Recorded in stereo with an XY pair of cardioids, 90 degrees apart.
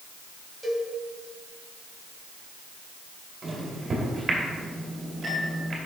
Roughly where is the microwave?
Ahead right.